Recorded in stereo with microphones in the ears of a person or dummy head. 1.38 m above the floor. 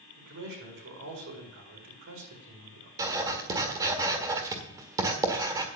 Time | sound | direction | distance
0.2 | a man speaking | 65° right (ahead or behind) | 4 m
3.0 | writing | 15° right (ahead or behind) | 1.5 m